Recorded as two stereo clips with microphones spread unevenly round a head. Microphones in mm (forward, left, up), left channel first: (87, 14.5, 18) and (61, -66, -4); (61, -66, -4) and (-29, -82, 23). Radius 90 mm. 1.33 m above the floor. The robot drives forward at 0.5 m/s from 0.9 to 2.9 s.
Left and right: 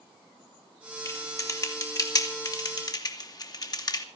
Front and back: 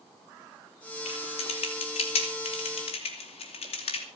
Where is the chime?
I don't hear a chime.